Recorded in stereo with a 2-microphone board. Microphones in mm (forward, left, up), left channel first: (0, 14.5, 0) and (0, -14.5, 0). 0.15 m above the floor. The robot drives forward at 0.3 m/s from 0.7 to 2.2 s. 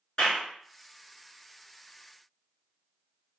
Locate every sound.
0.2 s a clap: 30° left (ahead or behind), 1.9 m